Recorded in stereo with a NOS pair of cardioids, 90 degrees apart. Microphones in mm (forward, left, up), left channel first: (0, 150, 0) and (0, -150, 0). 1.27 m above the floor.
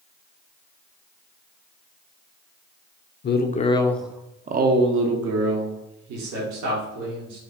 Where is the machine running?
No machine running in this recording.